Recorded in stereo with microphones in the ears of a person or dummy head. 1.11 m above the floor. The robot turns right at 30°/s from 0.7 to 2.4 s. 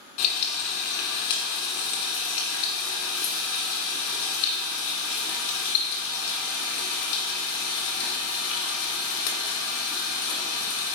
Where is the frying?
55° left, 1.7 m; by 11.0 s 105° left, 1.7 m.